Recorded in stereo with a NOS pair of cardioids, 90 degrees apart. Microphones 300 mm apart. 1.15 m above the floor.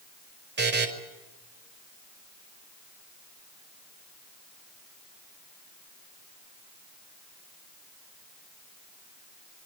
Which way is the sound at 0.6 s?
35° right.